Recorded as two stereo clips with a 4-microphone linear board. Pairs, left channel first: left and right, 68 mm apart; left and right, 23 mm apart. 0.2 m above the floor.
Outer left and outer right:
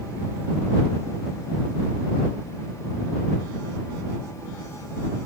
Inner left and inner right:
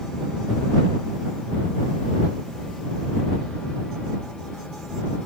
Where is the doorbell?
I don't hear a doorbell.